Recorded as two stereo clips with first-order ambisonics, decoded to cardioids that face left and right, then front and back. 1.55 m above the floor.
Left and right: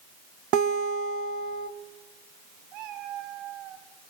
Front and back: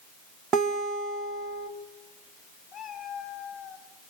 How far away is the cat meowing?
About 5 m.